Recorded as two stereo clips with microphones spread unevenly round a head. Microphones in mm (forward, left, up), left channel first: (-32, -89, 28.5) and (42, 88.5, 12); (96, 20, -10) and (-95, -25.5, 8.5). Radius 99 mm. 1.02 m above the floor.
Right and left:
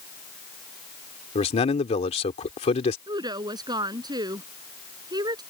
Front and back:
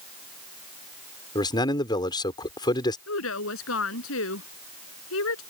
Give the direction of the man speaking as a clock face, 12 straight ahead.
2 o'clock.